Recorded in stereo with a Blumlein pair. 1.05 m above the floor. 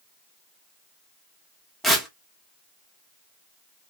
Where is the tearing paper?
Straight ahead, 1.2 m.